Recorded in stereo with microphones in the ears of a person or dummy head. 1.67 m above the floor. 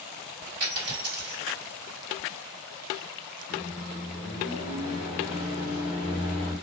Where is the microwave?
45° left (ahead or behind), 1.0 m.